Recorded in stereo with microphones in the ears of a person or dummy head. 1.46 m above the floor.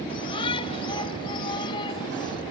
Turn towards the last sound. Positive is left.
turn(degrees=25)  # may be behind; listen again after turning